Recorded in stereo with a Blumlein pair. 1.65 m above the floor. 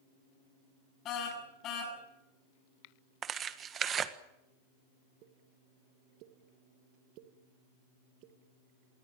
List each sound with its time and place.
1.1 s a car horn: 35° left, 7 m
3.2 s tearing paper: 25° right, 1.6 m
5.2 s a pop: 40° right, 2 m